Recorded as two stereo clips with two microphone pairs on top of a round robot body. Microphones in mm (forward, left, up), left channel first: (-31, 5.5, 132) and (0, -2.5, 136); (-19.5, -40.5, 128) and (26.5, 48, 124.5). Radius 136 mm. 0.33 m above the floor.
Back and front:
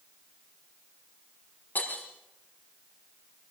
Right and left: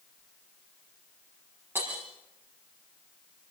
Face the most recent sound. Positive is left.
turn(degrees=130)